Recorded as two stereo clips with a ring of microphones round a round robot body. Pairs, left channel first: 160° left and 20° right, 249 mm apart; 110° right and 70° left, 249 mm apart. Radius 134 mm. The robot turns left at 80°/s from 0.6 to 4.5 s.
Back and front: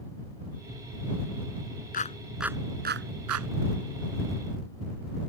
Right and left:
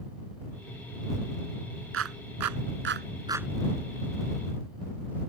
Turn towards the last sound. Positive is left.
turn(degrees=-100)